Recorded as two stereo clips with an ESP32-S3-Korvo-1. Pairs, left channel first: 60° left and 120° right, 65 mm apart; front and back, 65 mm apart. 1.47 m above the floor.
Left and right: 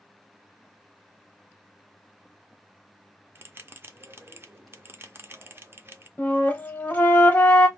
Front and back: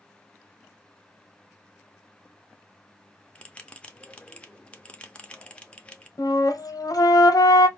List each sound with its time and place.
3.4 s a bell: 70° right, 0.5 m
6.2 s a flute: straight ahead, 0.7 m